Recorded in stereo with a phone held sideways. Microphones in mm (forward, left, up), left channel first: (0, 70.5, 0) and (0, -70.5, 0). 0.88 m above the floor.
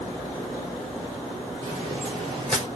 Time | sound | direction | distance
1.6 | footsteps | 30° right (ahead or behind) | 7 m